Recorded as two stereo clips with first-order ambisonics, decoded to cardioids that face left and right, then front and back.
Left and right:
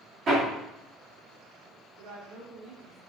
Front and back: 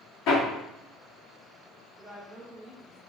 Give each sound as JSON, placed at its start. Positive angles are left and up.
{"t": 0.3, "sound": "hammering", "azimuth_deg": -35, "distance_m": 1.6}
{"t": 2.0, "sound": "a woman speaking", "azimuth_deg": -95, "distance_m": 2.0}